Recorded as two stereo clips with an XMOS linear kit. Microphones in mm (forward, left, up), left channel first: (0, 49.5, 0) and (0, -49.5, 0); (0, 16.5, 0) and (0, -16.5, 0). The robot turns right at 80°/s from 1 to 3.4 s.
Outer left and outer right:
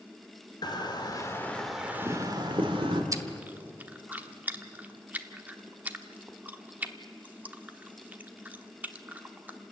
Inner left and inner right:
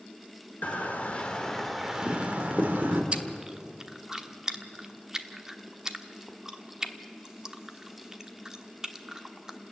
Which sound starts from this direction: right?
Chewing, at 3.1 s.